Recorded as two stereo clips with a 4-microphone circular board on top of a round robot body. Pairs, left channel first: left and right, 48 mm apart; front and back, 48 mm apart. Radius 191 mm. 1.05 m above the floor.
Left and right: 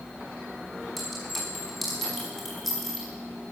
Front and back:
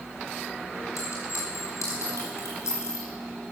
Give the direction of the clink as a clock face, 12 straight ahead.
12 o'clock.